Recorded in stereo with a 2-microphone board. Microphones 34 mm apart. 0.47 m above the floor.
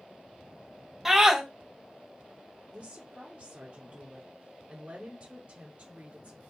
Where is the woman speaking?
35° right (ahead or behind), 1.1 m.